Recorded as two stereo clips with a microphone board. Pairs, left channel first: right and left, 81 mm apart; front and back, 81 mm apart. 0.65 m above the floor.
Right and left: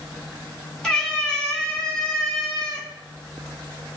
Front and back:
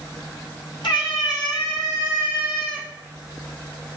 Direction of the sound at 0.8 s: 10° right.